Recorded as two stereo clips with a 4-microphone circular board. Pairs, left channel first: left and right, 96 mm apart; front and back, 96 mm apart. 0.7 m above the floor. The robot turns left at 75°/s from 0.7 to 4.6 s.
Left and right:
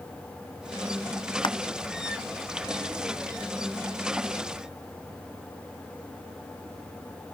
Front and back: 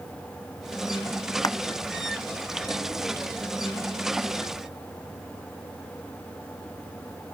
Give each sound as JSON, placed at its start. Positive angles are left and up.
{"t": 1.4, "sound": "crushing", "azimuth_deg": 55}